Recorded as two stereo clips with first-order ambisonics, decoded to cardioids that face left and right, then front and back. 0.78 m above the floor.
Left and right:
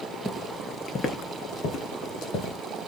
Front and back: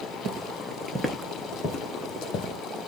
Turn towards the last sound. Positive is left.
turn(degrees=45)